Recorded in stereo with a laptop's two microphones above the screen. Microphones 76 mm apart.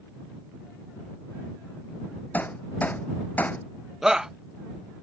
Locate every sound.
2.3 s hammering: 20° left (ahead or behind)
4.0 s a shout: 10° right (ahead or behind)